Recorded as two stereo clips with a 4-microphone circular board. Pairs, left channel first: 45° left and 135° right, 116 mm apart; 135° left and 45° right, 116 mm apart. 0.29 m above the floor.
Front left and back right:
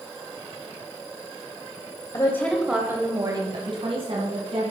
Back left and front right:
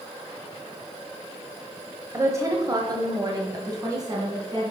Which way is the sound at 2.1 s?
10° left.